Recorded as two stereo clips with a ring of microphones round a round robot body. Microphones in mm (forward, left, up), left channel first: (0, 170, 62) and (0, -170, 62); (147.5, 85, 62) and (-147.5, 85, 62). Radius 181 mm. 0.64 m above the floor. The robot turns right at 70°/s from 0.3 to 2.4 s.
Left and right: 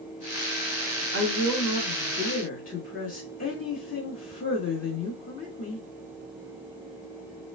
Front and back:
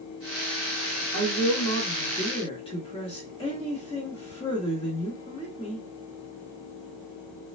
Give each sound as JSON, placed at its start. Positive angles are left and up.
{"t": 1.1, "sound": "a woman speaking", "azimuth_deg": -35, "distance_m": 1.2}